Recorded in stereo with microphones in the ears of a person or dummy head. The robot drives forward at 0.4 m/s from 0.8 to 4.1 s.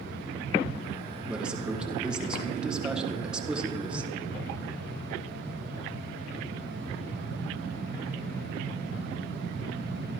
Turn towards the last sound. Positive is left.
turn(degrees=-10)  # may be behind; listen again after turning